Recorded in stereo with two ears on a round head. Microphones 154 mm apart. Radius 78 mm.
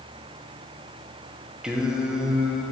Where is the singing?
5° right (ahead or behind), 0.7 m.